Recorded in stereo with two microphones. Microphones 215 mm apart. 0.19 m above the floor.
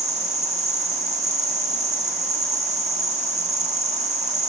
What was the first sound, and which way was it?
An insect, 35° right (ahead or behind).